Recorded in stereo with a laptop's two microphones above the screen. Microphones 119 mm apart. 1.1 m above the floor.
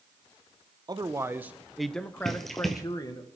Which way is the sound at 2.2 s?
Centre (ahead or behind).